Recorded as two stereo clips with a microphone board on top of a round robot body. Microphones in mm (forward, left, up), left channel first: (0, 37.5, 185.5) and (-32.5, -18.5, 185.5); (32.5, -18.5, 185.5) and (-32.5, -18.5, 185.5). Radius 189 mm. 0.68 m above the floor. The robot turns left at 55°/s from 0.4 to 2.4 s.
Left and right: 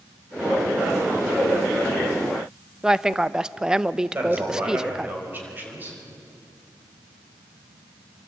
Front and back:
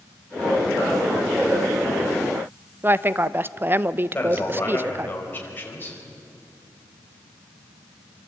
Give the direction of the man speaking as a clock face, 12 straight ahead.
2 o'clock.